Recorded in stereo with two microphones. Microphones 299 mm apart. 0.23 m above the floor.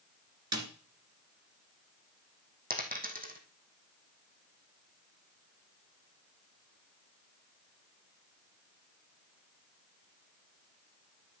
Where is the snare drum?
60° right (ahead or behind), 2.5 m.